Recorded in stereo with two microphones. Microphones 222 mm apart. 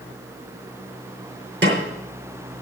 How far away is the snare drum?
About 2.5 m.